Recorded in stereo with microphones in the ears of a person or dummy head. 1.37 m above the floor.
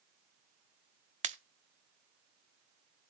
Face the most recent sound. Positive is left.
turn(degrees=-35)  # may be behind; listen again after turning